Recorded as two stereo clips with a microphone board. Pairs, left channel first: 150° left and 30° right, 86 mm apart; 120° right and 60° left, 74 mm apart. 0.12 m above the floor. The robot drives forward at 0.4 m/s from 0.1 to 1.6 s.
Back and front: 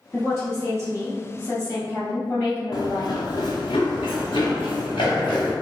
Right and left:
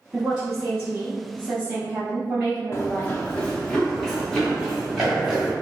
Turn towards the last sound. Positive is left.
turn(degrees=145)